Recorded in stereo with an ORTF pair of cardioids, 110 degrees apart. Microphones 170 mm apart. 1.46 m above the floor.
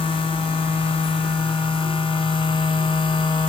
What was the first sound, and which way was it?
A machine running, 30° left.